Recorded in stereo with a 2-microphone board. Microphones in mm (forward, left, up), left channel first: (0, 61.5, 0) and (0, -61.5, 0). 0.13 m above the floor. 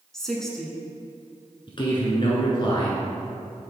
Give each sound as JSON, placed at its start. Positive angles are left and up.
{"t": 0.1, "sound": "a woman speaking", "side_deg": 5, "distance_m": 1.0}
{"t": 1.7, "sound": "a man speaking", "side_deg": 40, "distance_m": 1.4}